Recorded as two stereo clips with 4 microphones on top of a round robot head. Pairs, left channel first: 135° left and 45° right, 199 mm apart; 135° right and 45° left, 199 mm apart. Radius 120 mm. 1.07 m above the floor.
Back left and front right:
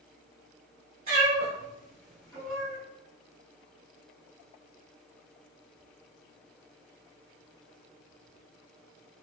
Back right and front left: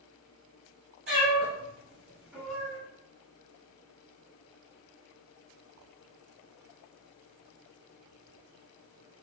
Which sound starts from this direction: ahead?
A cat meowing, at 1.1 s.